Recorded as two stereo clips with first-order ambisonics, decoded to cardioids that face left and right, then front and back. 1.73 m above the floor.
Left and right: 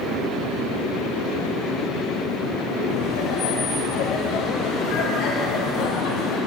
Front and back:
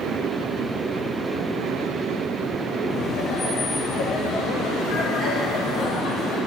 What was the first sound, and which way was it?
Laughter, 50° left.